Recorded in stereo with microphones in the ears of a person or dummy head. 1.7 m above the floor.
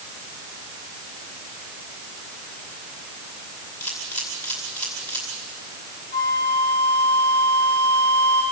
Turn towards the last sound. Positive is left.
turn(degrees=25)  # may be behind; listen again after turning